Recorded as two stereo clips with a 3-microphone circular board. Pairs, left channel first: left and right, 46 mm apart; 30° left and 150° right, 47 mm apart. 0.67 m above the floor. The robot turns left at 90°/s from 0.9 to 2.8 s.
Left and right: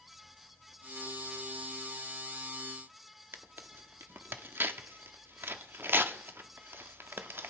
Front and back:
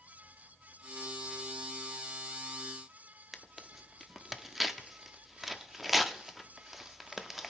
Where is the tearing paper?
65° right, 0.7 m.